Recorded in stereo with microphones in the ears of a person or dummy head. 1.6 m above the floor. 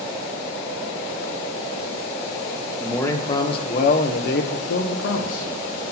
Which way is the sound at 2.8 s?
15° left (ahead or behind).